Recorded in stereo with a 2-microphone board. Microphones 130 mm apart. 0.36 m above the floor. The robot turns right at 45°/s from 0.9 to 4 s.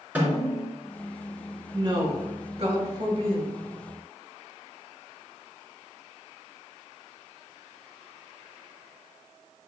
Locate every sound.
0.1 s a snare drum: 10° right (ahead or behind), 2.5 m
1.7 s a woman speaking: 130° right, 1.8 m; by 3.5 s 50° right, 1.8 m